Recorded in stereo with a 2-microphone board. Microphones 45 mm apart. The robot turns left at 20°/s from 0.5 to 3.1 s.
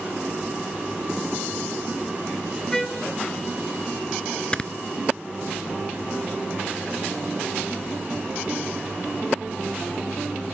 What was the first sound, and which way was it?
A trumpet, 10° left (ahead or behind).